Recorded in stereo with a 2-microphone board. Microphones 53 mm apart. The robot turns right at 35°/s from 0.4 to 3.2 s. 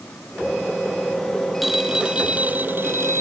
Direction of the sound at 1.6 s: Straight behind.